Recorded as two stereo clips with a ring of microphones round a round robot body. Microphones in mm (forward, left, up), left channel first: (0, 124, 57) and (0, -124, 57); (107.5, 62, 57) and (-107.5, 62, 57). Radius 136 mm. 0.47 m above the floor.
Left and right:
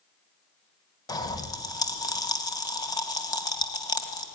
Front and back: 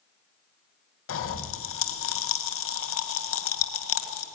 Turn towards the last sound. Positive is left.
turn(degrees=15)